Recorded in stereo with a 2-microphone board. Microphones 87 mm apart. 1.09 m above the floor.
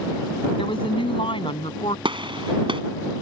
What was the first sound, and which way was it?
A woman speaking, 80° left.